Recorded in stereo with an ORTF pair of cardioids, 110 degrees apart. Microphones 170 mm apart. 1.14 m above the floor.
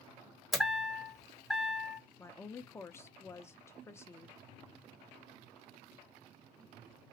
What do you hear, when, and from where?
0.5 s a chime: straight ahead, 0.8 m
2.2 s a woman speaking: 15° left, 0.5 m